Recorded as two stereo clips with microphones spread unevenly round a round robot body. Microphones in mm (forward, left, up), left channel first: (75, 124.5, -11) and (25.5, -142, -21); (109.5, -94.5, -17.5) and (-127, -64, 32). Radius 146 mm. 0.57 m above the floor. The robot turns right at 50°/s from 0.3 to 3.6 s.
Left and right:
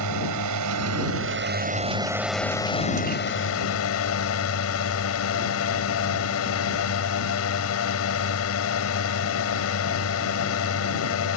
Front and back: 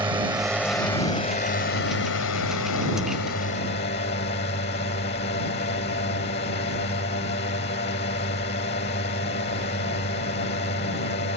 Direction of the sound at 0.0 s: 110° right.